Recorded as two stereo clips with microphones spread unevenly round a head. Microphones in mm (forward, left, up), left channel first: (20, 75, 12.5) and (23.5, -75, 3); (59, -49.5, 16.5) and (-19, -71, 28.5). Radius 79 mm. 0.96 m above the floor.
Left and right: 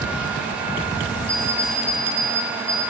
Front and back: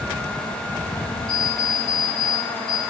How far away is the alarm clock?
About 6 m.